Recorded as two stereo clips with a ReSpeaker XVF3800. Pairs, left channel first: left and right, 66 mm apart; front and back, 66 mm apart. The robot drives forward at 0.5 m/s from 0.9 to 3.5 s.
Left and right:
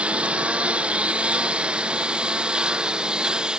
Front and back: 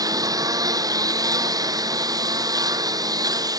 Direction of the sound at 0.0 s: 165° right.